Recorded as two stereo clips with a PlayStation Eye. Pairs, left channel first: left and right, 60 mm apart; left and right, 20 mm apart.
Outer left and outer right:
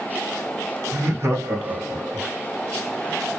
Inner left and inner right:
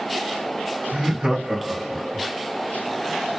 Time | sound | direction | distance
0.9 | laughter | 55° right (ahead or behind) | 3 m